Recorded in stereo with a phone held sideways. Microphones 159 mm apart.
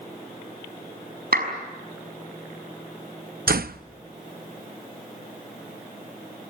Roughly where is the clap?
Right.